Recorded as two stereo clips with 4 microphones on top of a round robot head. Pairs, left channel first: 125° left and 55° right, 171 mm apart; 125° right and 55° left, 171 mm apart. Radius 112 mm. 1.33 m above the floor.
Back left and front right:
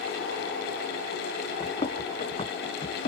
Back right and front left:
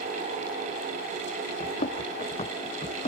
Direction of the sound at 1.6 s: 175° right.